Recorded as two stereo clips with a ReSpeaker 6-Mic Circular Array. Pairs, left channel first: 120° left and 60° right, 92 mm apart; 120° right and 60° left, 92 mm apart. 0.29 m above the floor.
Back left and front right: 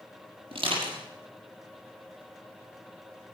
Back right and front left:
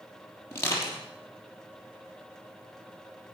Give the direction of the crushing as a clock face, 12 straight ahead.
2 o'clock.